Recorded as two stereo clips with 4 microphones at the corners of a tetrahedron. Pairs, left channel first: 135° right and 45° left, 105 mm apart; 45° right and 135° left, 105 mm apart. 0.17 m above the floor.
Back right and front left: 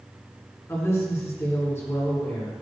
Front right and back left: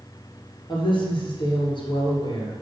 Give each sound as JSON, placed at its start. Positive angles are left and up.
{"t": 0.7, "sound": "a woman speaking", "azimuth_deg": -75, "distance_m": 3.0}